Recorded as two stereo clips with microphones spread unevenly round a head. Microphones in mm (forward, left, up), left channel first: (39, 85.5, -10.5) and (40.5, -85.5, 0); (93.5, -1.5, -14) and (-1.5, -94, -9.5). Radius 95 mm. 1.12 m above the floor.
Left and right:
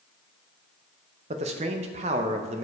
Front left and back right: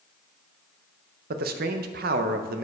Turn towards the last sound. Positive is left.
turn(degrees=-150)